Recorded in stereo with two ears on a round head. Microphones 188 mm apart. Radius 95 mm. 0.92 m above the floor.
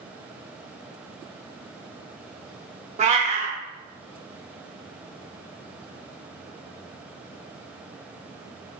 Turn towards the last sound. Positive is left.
turn(degrees=-35)  # may be behind; listen again after turning